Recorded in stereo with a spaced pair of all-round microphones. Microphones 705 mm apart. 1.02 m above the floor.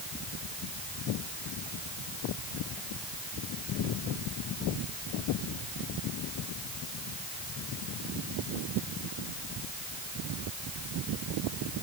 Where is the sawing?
No sawing in this recording.